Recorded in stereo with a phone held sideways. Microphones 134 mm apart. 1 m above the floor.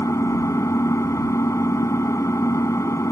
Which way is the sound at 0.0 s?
20° left (ahead or behind).